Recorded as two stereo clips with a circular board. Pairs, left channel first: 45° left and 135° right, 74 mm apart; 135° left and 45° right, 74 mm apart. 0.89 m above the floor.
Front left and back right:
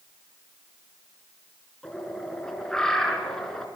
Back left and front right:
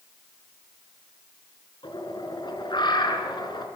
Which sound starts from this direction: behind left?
A bird, at 1.8 s.